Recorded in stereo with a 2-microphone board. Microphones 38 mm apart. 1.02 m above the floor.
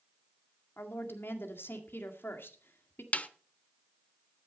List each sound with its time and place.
0.8 s a woman speaking: 75° left (ahead or behind), 1.9 m
3.1 s a snare drum: 35° left (ahead or behind), 0.8 m